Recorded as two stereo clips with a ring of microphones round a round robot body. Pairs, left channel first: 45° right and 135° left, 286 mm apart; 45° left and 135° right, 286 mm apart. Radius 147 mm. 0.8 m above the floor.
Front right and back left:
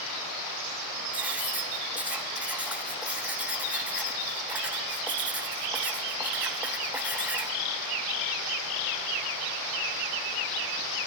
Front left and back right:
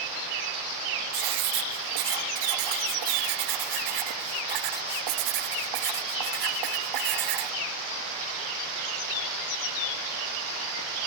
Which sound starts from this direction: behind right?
Writing, at 1.1 s.